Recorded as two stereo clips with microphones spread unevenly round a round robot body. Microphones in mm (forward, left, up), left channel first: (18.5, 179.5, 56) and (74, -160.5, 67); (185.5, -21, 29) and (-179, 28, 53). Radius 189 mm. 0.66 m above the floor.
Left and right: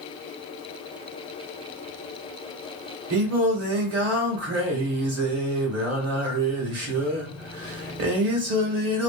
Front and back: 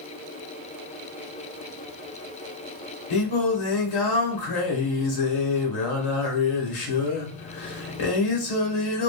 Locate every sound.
3.1 s singing: 35° right, 1.0 m